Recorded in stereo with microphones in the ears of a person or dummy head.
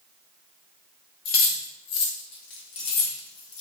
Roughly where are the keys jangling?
Left.